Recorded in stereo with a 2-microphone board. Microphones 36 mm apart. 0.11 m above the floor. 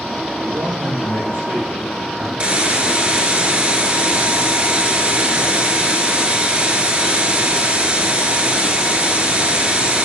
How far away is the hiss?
About 1.1 m.